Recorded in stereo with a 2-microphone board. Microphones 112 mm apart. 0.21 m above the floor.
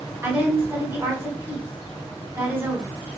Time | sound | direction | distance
0.2 | a woman speaking | 20° right (ahead or behind) | 1.3 m